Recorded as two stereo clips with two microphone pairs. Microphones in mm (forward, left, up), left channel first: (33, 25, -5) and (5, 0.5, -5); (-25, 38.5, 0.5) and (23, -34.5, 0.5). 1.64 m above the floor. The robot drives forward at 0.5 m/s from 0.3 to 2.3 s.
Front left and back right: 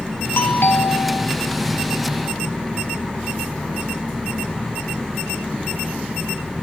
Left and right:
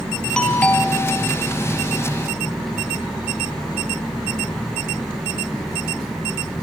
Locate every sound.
0.4 s a doorbell: 45° left, 1.6 m; by 1.3 s 60° left, 1.3 m